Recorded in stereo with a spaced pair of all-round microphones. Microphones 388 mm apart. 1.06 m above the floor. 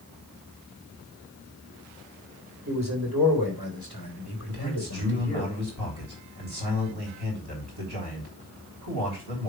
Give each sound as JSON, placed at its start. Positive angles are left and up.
{"t": 2.7, "sound": "a man speaking", "side_deg": -55, "distance_m": 3.0}
{"t": 4.5, "sound": "a man speaking", "side_deg": -75, "distance_m": 3.0}